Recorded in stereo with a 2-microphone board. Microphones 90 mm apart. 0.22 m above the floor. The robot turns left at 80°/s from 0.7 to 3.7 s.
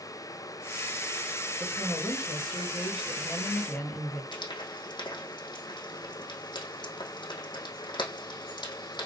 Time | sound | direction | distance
1.6 | a woman speaking | straight behind | 3 m
4.3 | frying | 60° left (ahead or behind) | 4 m